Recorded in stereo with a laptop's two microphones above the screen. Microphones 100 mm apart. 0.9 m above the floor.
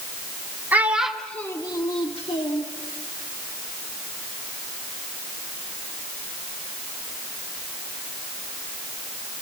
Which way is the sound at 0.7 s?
20° right (ahead or behind).